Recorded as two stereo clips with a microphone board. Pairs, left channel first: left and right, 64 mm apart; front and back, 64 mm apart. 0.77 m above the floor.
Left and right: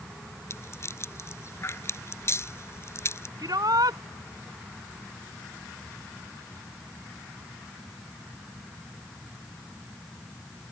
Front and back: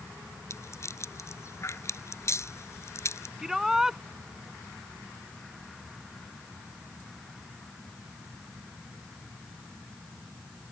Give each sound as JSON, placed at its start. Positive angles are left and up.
{"t": 0.5, "sound": "a rattle", "azimuth_deg": 45}
{"t": 3.4, "sound": "a shout", "azimuth_deg": -95}